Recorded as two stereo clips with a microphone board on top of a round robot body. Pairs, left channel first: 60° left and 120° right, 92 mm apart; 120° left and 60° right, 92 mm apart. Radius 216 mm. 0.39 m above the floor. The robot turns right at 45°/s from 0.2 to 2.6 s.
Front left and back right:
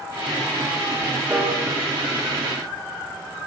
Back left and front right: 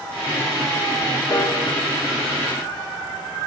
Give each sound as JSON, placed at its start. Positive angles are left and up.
{"t": 1.3, "sound": "a piano", "azimuth_deg": 170, "distance_m": 1.4}